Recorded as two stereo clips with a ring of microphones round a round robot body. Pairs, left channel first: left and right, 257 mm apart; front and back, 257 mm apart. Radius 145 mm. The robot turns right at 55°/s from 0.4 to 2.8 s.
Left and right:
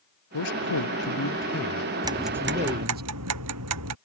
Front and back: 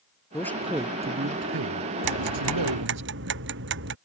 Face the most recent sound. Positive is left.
turn(degrees=-130)